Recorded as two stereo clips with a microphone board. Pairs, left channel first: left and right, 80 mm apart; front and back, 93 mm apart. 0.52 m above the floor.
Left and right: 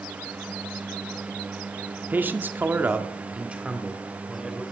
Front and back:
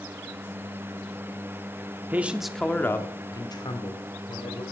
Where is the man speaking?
130° right, 1.1 m; by 4.6 s 5° right, 2.5 m.